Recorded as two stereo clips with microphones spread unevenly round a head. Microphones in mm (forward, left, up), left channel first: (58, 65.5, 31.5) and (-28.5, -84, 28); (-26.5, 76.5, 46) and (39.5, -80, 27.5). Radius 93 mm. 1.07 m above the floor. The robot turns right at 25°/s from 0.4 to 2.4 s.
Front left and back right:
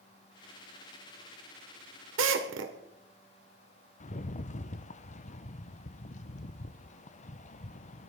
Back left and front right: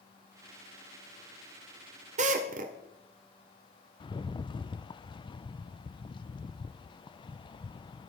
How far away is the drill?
About 1.7 m.